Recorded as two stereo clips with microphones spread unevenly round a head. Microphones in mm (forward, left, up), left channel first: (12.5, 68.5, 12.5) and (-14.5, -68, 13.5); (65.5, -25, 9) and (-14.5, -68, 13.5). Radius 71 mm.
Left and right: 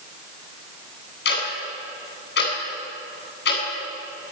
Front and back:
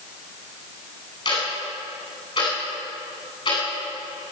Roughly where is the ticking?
Left.